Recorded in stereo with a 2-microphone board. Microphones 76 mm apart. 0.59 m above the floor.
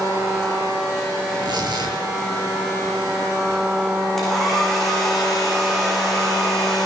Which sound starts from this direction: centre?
A hair dryer, at 4.2 s.